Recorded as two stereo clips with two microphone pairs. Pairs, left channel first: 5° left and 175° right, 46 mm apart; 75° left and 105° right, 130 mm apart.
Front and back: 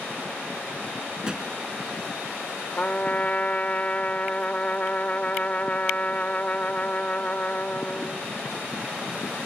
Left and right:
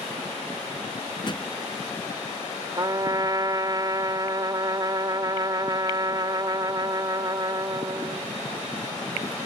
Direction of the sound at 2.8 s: 50° right.